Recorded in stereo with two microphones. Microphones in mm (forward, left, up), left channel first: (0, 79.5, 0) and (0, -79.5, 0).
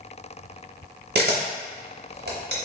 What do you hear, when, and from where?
1.1 s a camera shutter: 70° right (ahead or behind), 0.6 m